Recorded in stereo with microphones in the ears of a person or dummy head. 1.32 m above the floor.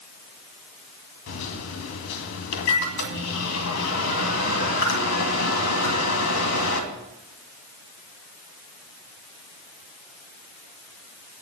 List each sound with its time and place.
1.3 s a microwave: 80° left, 2 m